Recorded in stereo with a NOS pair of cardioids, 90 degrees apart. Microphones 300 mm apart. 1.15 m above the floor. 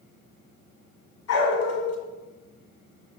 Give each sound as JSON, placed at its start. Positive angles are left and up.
{"t": 1.3, "sound": "a dog barking", "azimuth_deg": 60, "distance_m": 1.9}